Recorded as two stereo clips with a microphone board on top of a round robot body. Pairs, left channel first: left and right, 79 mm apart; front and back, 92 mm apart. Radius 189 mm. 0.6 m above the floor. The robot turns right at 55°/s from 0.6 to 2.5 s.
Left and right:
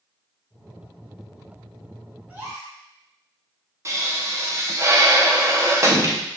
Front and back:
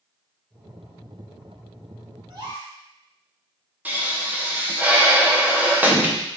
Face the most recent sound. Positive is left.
turn(degrees=-115)